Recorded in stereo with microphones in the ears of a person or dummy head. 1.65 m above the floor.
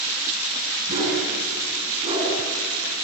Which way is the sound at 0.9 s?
40° right (ahead or behind).